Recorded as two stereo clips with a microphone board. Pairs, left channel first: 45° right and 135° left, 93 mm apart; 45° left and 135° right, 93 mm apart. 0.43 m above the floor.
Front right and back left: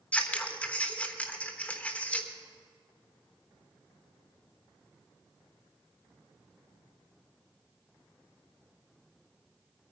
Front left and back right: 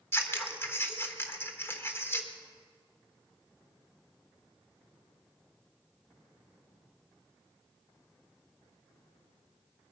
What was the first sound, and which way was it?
Scissors, 15° left.